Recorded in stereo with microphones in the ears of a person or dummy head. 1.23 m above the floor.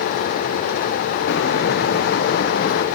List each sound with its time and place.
1.3 s footsteps: 65° left (ahead or behind), 3 m; by 2.9 s 60° left (ahead or behind), 2.5 m